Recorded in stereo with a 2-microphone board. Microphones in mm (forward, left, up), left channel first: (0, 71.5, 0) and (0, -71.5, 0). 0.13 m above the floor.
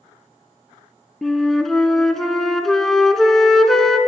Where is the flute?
5° left (ahead or behind), 0.7 m.